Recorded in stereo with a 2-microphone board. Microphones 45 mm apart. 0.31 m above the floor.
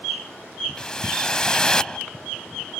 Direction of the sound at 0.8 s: 20° left (ahead or behind).